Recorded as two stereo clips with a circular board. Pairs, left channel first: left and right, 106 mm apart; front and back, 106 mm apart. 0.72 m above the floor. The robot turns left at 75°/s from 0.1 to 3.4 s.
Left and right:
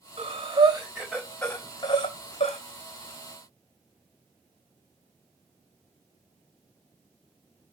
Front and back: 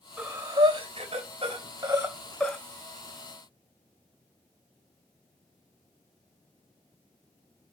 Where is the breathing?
95° right, 3 m; by 2.6 s 85° left, 3 m.